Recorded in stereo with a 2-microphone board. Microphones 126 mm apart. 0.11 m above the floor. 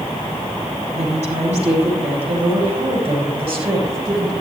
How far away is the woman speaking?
About 6 m.